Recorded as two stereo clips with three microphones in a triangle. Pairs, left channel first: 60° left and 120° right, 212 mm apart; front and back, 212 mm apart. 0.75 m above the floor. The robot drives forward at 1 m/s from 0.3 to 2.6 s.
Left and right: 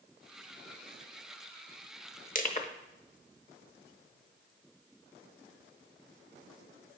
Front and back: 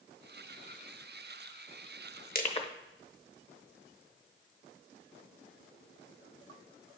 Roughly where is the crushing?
Ahead left.